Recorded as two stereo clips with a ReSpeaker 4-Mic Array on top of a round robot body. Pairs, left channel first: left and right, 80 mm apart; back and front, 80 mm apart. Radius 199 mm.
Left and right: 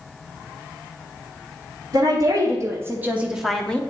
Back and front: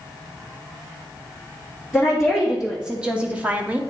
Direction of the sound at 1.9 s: 90° right.